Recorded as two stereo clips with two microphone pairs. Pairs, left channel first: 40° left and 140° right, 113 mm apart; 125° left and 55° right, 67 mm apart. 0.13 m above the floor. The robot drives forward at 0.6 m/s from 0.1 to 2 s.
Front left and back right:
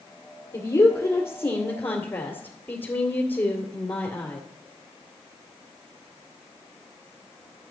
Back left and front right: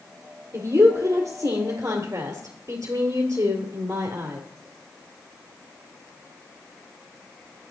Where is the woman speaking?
20° right, 3 m; by 4.4 s 30° right, 2.5 m.